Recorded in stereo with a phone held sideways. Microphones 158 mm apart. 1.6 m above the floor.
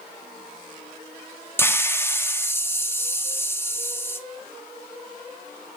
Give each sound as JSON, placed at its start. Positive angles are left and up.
{"t": 1.6, "sound": "a hiss", "side_deg": 15, "distance_m": 0.7}